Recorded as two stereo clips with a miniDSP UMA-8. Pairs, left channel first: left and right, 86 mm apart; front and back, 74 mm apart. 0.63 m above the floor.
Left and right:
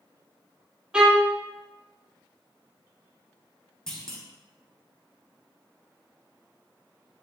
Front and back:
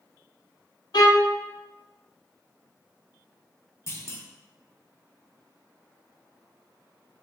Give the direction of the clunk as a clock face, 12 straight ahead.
12 o'clock.